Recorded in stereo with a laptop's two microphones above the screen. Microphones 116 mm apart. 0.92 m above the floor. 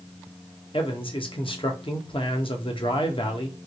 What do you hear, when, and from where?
0.7 s a man speaking: 50° left (ahead or behind), 0.8 m